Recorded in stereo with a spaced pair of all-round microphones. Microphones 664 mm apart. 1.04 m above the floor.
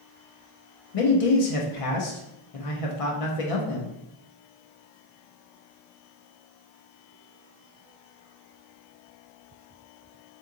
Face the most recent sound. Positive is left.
turn(degrees=60)  # may be behind; listen again after turning